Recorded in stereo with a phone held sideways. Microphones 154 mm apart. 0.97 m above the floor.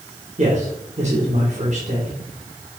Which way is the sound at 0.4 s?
50° right (ahead or behind).